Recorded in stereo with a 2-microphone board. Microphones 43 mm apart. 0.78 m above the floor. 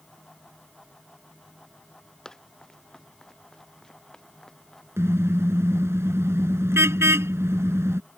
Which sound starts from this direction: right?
A car horn, at 5.0 s.